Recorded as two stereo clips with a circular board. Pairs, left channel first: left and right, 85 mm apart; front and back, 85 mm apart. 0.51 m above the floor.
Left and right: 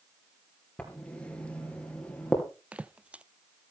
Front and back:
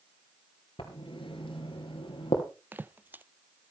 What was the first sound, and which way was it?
Writing, 10° left.